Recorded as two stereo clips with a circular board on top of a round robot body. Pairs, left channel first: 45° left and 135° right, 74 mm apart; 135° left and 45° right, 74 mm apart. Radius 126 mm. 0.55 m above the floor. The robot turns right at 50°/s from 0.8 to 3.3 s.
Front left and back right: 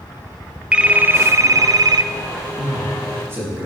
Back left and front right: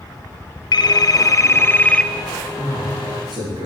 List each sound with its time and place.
0.7 s a phone ringing: 150° left, 0.7 m; by 2.1 s 145° right, 0.7 m
2.6 s a man speaking: 115° right, 5.5 m; by 3.7 s 75° right, 5.5 m